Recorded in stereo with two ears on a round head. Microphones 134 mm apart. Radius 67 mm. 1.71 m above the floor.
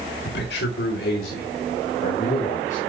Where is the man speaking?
75° left (ahead or behind), 1.9 m; by 2.8 s 50° left (ahead or behind), 4.5 m.